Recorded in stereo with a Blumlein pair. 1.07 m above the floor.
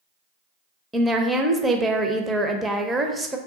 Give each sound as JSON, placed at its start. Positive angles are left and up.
{"t": 0.9, "sound": "a woman speaking", "azimuth_deg": -10, "distance_m": 0.5}